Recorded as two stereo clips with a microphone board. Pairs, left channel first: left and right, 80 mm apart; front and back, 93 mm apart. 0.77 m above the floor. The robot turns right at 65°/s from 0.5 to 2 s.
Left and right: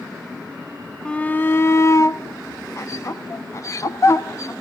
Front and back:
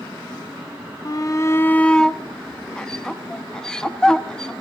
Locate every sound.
1.1 s a shout: 20° left, 0.8 m; by 4.5 s 80° left, 0.8 m